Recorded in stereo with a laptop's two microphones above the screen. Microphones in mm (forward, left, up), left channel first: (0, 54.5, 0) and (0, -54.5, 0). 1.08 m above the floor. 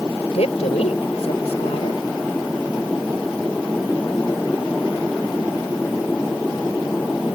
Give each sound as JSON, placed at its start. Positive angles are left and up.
{"t": 0.3, "sound": "a woman speaking", "side_deg": 85}